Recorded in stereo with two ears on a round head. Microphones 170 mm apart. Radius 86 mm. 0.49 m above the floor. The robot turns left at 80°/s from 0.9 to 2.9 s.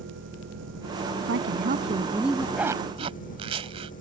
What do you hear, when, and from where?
0.0 s an engine running: 65° right; by 4.0 s 135° left
1.2 s a woman speaking: 90° right; by 2.5 s 170° left
2.6 s a zipper: 5° right (ahead or behind); by 3.9 s 30° right (ahead or behind)